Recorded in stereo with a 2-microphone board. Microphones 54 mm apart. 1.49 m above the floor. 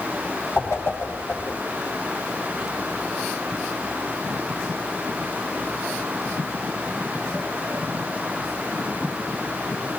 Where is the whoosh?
60° left (ahead or behind), 5.5 m.